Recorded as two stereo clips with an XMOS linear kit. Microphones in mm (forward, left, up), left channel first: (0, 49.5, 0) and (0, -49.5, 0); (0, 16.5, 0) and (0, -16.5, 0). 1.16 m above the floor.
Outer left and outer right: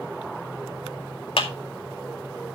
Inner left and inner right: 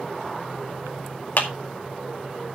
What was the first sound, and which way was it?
A clap, 60° left (ahead or behind).